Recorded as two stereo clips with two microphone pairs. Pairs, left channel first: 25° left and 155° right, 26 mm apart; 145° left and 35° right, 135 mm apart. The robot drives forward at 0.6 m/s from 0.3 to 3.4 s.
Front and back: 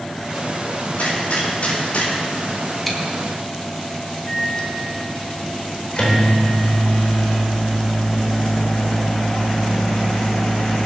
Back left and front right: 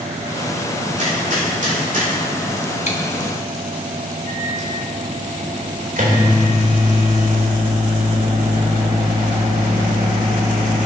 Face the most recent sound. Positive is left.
turn(degrees=-30)